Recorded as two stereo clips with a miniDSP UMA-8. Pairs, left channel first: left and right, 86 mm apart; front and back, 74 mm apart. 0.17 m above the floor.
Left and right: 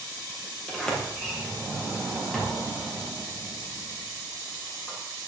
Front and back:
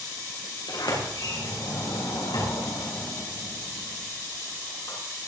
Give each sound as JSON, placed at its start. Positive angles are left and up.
{"t": 0.7, "sound": "a sliding door", "azimuth_deg": 5, "distance_m": 5.5}